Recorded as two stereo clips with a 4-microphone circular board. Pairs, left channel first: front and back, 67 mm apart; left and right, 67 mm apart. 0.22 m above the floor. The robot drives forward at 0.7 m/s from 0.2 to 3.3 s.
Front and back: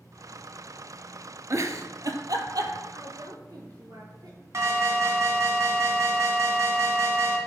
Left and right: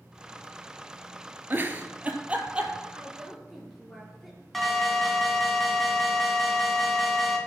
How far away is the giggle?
About 0.8 m.